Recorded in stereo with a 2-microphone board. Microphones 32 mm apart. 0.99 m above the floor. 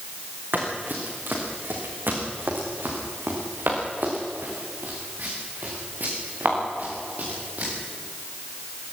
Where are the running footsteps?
65° right (ahead or behind), 5.5 m; by 7.7 s 50° right (ahead or behind), 8 m.